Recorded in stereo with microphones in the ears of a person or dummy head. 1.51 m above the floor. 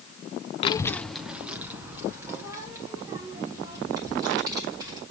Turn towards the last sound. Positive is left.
turn(degrees=-20)  # may be behind; listen again after turning